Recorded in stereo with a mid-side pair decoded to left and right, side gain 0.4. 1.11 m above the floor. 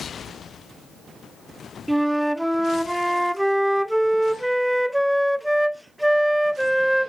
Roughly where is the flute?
Ahead.